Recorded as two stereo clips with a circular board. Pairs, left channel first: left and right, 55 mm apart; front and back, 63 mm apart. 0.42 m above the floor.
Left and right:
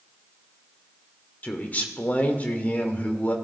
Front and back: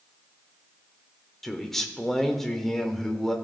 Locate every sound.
1.4 s a man speaking: 80° left, 1.0 m